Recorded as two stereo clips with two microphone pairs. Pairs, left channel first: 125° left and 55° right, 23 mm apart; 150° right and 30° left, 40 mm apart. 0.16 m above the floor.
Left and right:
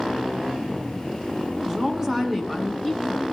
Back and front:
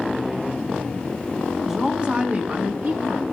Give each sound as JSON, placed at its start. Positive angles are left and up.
{"t": 1.6, "sound": "a woman speaking", "azimuth_deg": -40, "distance_m": 1.6}